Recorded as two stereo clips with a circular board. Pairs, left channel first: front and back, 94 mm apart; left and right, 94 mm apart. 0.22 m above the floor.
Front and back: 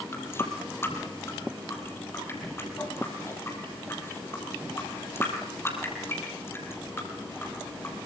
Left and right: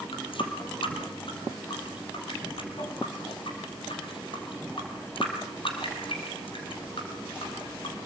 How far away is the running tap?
About 4 m.